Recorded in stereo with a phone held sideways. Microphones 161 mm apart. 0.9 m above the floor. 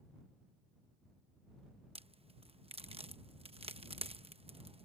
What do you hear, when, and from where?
1.9 s a crack: 35° right (ahead or behind)